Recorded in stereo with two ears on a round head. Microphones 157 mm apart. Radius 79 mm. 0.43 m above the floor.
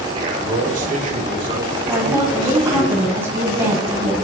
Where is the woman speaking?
15° right (ahead or behind), 2.5 m.